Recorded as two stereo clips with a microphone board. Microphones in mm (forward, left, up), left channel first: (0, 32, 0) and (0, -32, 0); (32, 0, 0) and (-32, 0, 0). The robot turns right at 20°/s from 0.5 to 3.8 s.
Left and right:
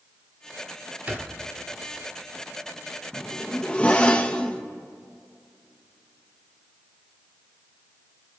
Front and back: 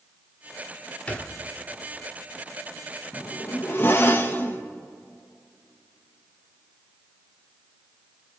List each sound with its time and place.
1.1 s a thud: 50° right, 1.2 m; by 1.4 s 45° right, 1.2 m
3.1 s a zipper: 15° left, 0.8 m; by 4.6 s 30° left, 0.8 m